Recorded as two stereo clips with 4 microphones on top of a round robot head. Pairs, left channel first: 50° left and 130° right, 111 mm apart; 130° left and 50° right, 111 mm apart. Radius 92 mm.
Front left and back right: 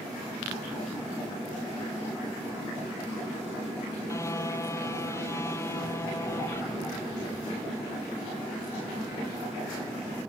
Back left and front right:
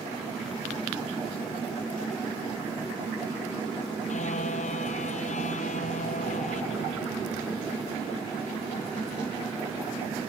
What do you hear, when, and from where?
4.1 s a car horn: 115° left